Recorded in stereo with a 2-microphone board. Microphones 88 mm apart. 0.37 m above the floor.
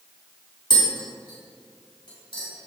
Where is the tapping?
65° left (ahead or behind), 3.5 m.